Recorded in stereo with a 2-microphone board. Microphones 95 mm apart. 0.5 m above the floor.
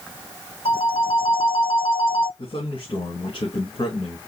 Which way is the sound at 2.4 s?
65° left (ahead or behind).